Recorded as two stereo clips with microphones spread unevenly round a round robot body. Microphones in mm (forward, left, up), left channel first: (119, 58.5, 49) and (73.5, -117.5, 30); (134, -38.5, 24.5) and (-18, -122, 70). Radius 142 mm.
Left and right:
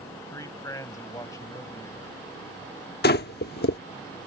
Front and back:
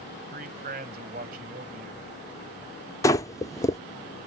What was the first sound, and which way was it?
A man speaking, 155° left.